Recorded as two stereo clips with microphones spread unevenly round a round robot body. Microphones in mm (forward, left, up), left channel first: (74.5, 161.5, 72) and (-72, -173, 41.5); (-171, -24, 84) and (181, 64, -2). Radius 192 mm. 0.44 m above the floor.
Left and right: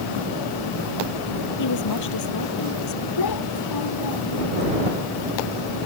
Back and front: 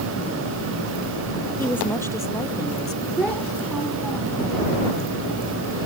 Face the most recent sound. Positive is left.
turn(degrees=105)